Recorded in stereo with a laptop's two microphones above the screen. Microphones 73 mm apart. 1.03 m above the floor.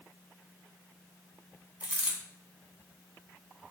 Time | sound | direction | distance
1.8 | a dropped coin | 25° right (ahead or behind) | 1.3 m